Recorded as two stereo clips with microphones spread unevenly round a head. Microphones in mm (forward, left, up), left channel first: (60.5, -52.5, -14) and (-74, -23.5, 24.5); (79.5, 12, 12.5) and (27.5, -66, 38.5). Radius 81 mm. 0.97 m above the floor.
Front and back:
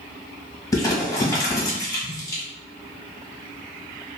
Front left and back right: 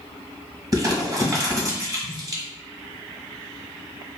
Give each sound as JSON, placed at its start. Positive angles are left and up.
{"t": 0.7, "sound": "crumpling", "azimuth_deg": -65, "distance_m": 1.3}